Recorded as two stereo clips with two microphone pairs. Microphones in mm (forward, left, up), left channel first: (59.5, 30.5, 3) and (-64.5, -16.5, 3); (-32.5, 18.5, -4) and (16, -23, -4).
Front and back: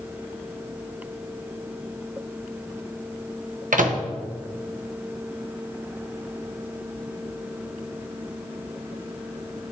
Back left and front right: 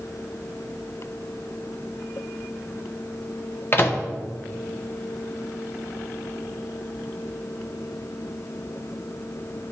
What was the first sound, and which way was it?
A microwave, 165° right.